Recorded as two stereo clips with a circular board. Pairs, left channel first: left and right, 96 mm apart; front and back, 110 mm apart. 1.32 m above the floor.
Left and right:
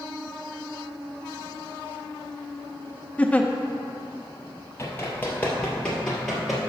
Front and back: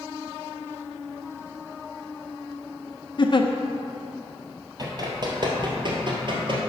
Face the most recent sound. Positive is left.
turn(degrees=180)